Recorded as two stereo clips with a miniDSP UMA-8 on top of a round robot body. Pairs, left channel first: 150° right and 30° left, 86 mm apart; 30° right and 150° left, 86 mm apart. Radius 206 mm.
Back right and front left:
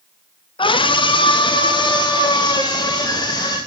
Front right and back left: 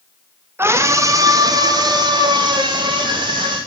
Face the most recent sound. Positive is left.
turn(degrees=170)